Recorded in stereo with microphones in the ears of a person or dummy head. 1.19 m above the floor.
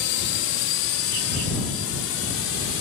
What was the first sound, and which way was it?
A drone, 55° left (ahead or behind).